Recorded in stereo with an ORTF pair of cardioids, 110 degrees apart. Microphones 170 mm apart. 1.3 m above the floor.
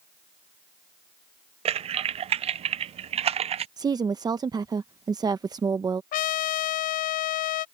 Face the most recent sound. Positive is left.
turn(degrees=60)